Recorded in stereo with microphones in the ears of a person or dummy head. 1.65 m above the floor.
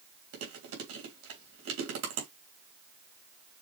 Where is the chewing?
85° right, 3 m.